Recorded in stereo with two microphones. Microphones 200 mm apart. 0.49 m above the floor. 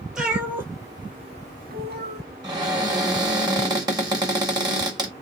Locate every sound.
0.1 s a cat meowing: 5° right (ahead or behind), 1.1 m; by 2.2 s 55° right (ahead or behind), 0.6 m
2.4 s a cupboard door: 20° right (ahead or behind), 1.5 m